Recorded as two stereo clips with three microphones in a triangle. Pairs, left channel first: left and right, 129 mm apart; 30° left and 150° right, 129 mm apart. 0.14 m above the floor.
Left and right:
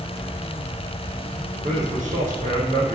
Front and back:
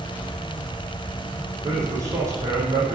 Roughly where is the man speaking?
Right.